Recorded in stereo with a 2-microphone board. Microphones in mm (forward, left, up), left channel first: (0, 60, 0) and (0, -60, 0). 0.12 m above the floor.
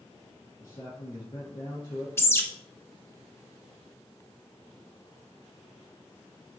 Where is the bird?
20° left (ahead or behind), 0.7 m.